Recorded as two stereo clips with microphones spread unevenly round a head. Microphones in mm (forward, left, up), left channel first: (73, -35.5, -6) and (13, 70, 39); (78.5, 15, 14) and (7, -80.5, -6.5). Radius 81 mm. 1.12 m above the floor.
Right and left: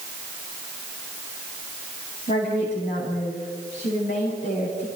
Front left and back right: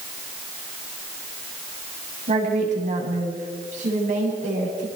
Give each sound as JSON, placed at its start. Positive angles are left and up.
{"t": 2.3, "sound": "a woman speaking", "azimuth_deg": -110, "distance_m": 8.5}